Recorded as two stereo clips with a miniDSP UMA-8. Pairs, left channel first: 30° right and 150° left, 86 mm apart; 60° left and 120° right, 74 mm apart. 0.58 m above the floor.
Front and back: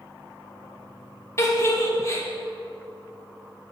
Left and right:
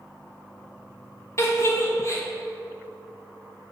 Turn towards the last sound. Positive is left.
turn(degrees=20)